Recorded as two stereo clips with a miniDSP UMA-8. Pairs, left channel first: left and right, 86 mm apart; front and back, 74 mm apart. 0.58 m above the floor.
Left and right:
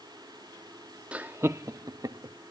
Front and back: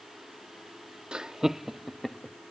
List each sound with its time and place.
1.1 s laughter: 130° right; by 2.4 s 90° right